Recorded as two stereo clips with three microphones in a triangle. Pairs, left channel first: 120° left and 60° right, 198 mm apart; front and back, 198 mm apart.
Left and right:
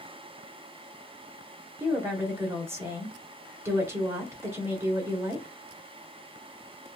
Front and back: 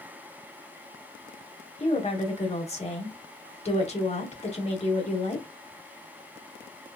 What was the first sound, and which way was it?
A woman speaking, 5° left.